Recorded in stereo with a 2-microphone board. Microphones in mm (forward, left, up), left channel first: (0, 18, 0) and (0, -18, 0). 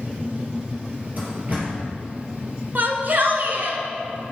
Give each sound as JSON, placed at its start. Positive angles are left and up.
{"t": 1.2, "sound": "a door slam", "side_deg": -45, "distance_m": 3.5}
{"t": 2.8, "sound": "a shout", "side_deg": -55, "distance_m": 1.7}